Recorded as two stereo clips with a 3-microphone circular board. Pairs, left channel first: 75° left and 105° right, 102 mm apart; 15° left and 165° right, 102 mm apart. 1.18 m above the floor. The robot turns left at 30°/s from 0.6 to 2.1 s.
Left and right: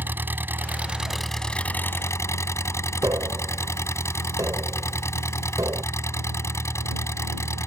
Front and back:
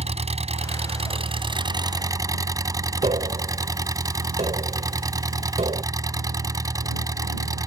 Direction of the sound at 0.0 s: 175° right.